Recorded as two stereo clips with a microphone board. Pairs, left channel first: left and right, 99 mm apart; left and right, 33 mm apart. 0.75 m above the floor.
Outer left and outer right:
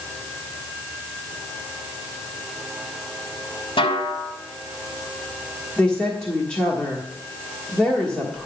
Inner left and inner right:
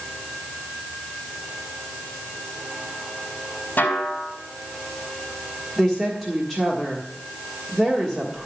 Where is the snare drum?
70° left (ahead or behind), 2.5 m.